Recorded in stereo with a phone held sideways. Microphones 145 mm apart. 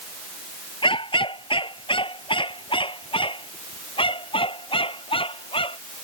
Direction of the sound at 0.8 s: 35° left (ahead or behind).